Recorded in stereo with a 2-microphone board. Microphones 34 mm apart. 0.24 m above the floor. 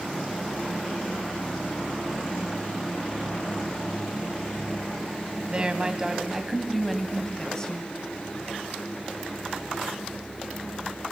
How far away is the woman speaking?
About 1.8 m.